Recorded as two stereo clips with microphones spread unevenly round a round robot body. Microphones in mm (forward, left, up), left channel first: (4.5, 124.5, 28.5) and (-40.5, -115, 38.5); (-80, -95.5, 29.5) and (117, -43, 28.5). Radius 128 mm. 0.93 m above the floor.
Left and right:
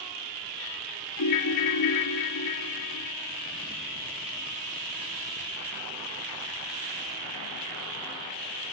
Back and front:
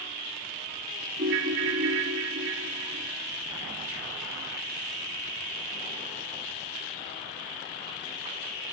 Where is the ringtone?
65° left, 1.3 m.